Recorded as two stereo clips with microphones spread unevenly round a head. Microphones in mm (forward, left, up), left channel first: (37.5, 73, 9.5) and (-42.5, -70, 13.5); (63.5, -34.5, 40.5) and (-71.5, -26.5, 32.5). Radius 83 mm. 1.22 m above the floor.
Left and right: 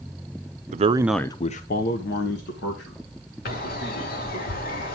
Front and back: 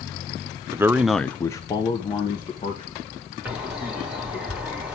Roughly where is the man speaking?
Behind right.